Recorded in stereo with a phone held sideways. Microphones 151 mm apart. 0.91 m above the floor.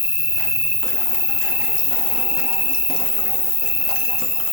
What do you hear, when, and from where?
0.0 s an insect: 45° left (ahead or behind), 0.9 m